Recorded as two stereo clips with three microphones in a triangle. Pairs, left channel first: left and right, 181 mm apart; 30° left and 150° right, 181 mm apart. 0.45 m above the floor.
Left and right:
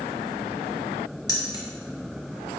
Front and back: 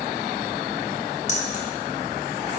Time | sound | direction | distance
1.3 | keys jangling | 35° left | 0.7 m